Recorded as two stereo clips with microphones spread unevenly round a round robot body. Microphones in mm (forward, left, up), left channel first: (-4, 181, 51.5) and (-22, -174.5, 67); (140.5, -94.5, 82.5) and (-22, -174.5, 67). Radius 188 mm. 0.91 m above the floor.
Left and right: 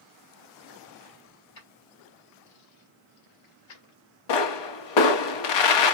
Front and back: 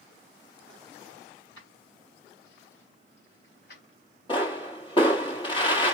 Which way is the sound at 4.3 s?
100° left.